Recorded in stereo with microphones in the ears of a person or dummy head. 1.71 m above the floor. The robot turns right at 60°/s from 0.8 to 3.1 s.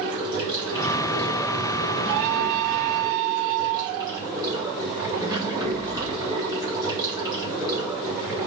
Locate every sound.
0.0 s running water: 160° right, 3 m; by 8.5 s 20° right, 3 m